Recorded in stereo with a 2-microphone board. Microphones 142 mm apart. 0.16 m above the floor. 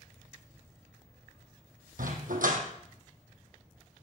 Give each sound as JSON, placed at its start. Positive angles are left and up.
{"t": 2.0, "sound": "a dog barking", "side_deg": -80, "distance_m": 2.0}